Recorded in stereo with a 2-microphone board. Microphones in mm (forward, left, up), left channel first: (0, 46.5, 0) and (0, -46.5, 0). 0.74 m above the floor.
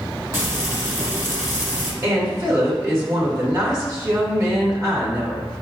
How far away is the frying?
About 1.1 m.